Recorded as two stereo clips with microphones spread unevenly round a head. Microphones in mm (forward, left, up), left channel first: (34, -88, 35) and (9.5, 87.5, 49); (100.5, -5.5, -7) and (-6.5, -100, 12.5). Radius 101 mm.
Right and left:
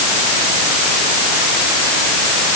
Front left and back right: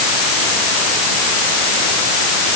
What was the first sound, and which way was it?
Only background noise.